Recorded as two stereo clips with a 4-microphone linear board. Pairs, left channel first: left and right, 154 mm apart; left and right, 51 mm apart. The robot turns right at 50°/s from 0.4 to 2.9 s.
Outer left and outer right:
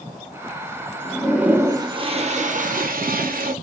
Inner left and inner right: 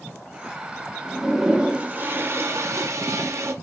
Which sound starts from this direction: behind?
A toilet flushing, at 1.1 s.